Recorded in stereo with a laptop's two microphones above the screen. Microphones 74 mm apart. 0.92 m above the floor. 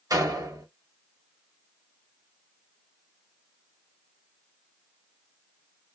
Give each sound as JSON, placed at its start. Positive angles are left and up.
{"t": 0.1, "sound": "a door slam", "side_deg": -60, "distance_m": 0.9}